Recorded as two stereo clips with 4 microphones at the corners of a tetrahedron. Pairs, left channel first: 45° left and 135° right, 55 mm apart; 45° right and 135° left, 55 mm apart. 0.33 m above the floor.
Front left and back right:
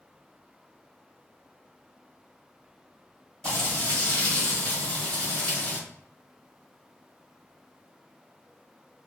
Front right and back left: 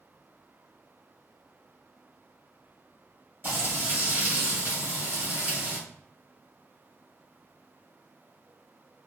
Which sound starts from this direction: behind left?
Frying, at 3.4 s.